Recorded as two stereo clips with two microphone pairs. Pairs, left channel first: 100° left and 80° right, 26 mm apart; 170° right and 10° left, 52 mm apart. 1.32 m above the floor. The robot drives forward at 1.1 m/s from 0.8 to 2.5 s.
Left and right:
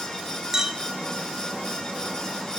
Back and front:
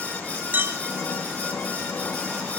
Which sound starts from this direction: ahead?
A clink, at 0.5 s.